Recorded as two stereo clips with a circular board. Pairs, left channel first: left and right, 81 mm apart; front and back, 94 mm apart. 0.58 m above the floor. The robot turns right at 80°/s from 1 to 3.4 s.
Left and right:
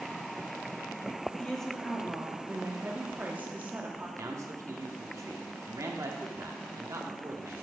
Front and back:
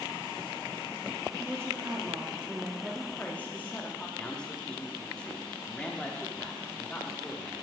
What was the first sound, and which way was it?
A woman speaking, 150° left.